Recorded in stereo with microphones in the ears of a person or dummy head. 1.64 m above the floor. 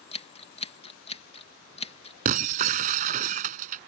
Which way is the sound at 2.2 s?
40° right (ahead or behind).